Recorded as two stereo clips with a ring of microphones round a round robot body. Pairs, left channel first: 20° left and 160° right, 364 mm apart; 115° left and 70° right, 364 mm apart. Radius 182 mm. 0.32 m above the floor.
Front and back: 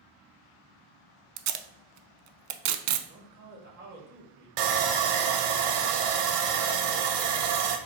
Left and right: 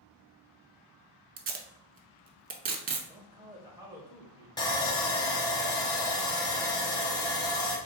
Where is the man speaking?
135° right, 1.2 m.